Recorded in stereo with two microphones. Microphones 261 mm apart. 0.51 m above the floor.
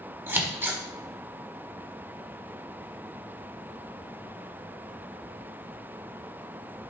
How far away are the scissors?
About 1.5 m.